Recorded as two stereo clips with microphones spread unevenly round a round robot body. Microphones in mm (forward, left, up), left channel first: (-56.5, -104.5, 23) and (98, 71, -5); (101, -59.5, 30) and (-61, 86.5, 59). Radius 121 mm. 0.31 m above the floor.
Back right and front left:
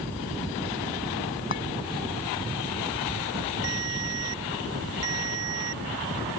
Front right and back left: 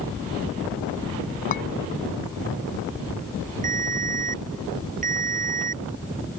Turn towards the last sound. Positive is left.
turn(degrees=85)